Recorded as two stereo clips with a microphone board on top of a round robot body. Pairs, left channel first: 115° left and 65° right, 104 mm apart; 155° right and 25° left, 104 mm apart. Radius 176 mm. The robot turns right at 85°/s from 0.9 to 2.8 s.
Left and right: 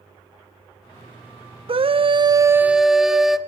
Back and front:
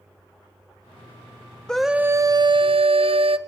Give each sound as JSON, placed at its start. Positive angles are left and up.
{"t": 1.7, "sound": "a scream", "azimuth_deg": -75, "distance_m": 1.4}